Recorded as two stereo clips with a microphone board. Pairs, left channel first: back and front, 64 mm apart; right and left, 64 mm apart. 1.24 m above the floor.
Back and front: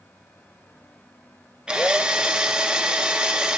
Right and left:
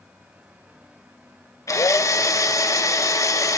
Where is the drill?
70° right, 0.7 m.